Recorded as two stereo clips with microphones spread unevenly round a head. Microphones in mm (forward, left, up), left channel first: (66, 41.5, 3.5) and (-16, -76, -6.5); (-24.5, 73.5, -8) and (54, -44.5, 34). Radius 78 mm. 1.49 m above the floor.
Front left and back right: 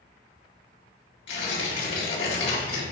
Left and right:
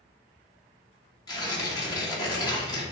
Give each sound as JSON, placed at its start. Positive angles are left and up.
{"t": 1.3, "sound": "tearing paper", "azimuth_deg": 60, "distance_m": 2.5}